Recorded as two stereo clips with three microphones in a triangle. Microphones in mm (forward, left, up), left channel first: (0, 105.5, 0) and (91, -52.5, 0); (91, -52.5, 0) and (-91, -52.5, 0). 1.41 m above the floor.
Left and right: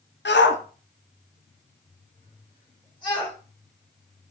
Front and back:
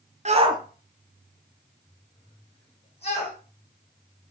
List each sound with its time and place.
0.2 s a shout: 135° left, 0.5 m; by 3.4 s 55° left, 1.7 m